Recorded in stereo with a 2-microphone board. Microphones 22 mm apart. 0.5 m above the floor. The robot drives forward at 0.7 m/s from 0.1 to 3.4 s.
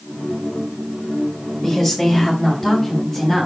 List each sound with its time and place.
1.6 s a woman speaking: 10° left (ahead or behind), 1.8 m; by 3.5 s 5° left (ahead or behind), 3 m